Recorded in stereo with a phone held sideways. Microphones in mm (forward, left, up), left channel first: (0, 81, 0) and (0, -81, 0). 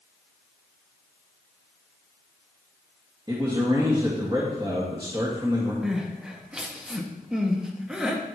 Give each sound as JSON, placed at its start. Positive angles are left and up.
{"t": 3.3, "sound": "a man speaking", "side_deg": -25, "distance_m": 1.7}
{"t": 5.8, "sound": "crying", "side_deg": -5, "distance_m": 1.0}